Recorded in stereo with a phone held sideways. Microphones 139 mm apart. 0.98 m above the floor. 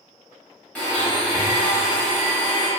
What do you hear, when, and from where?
0.8 s a blender: 10° left (ahead or behind), 0.9 m